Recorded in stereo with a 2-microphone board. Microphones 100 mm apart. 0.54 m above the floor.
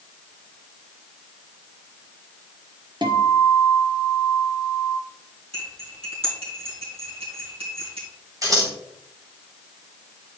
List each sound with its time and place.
3.0 s a guitar: 50° right (ahead or behind), 0.9 m
5.5 s cutlery clinking: 75° right (ahead or behind), 3 m
8.4 s scissors: 35° right (ahead or behind), 1.6 m